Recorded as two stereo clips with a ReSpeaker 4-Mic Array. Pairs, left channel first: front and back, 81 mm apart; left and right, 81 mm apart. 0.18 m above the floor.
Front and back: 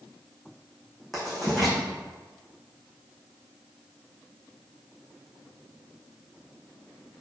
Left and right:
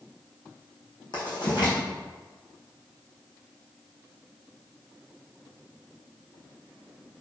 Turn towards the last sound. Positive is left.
turn(degrees=90)